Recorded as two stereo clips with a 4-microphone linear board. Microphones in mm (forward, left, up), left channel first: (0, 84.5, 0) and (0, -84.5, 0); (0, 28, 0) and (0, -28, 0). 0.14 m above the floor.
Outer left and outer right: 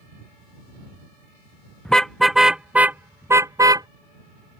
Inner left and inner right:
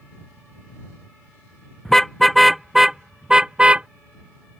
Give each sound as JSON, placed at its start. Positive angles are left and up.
{"t": 1.9, "sound": "a car horn", "side_deg": 5}